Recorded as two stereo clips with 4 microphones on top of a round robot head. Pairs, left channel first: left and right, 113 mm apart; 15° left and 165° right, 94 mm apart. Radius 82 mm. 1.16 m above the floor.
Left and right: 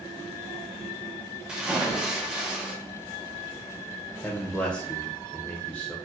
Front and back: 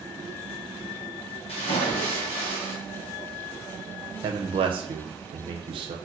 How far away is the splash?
About 0.8 m.